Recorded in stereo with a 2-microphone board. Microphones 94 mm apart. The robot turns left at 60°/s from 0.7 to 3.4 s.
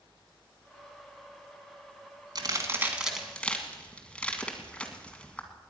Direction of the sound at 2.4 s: 45° right (ahead or behind).